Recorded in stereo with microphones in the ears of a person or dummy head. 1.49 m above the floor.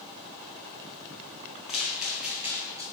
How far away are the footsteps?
About 2.0 m.